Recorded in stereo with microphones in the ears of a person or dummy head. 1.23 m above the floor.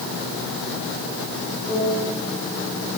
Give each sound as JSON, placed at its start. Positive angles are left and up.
{"t": 1.7, "sound": "a piano", "side_deg": 0, "distance_m": 4.0}